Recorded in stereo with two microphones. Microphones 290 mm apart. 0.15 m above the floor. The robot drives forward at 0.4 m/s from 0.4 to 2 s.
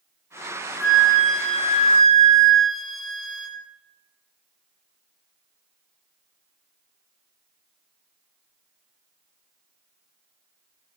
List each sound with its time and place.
0.8 s a flute: centre (ahead or behind), 0.8 m